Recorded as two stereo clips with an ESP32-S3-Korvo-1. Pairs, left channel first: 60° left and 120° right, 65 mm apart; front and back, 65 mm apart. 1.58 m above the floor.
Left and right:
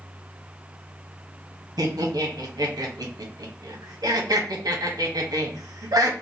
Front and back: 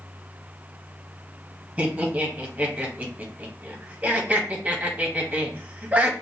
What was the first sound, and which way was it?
Laughter, 110° right.